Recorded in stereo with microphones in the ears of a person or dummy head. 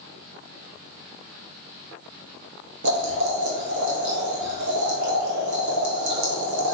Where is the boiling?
70° right (ahead or behind), 2.5 m.